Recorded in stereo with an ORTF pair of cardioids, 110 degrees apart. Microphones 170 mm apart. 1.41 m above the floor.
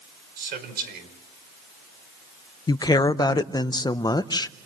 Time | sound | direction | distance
0.4 | a man speaking | 65° right | 5.5 m
2.7 | a woman speaking | 25° left | 0.8 m